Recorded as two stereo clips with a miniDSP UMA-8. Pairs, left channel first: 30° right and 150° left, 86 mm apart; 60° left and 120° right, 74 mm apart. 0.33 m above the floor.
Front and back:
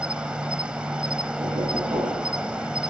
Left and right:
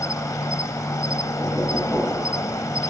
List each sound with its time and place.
0.0 s an insect: 75° left, 1.3 m
1.4 s knocking: 130° left, 5 m